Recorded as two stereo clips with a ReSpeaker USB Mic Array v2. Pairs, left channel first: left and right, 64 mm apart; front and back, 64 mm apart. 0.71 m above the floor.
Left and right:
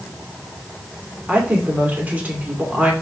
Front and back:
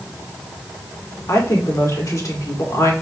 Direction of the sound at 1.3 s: 25° right.